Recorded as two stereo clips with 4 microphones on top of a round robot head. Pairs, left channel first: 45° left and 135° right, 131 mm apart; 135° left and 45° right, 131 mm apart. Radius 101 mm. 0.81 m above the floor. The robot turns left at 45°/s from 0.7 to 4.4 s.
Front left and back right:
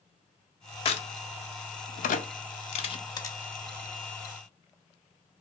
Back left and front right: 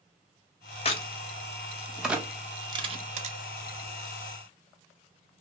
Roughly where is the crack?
Left.